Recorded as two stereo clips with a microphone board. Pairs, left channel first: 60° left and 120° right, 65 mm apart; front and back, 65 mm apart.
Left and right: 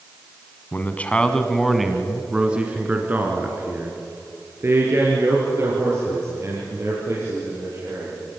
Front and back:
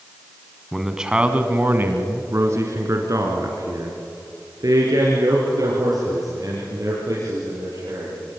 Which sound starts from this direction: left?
A man speaking, at 0.7 s.